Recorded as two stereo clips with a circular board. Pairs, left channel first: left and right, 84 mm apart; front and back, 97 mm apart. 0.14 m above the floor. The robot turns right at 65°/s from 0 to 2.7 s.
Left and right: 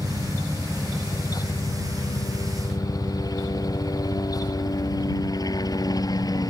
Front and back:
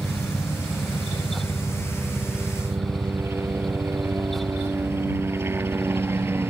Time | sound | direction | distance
0.0 | a helicopter | 55° right | ?